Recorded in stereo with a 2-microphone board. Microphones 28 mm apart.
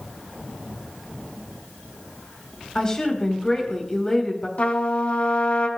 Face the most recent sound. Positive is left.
turn(degrees=50)  # may be behind; listen again after turning